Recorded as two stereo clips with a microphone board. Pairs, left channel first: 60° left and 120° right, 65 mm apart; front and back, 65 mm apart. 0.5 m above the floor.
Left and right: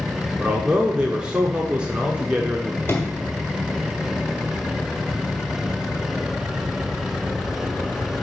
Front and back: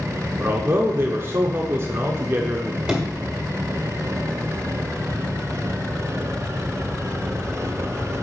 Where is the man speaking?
175° left, 0.8 m.